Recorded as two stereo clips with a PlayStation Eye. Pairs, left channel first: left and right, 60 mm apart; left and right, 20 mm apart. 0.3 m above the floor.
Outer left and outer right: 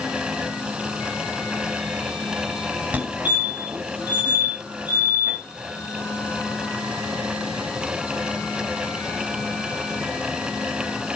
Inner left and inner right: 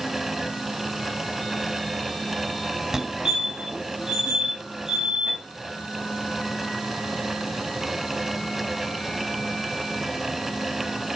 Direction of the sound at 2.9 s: 25° right (ahead or behind).